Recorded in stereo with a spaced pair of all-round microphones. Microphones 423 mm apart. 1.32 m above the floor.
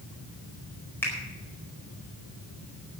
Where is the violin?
No violin in this recording.